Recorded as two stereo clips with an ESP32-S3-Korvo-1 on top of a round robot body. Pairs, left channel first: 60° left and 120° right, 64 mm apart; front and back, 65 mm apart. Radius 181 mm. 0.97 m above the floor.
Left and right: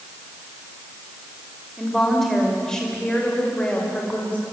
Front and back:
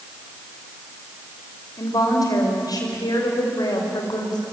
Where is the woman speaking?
30° right, 5 m; by 4.4 s 10° right, 5 m.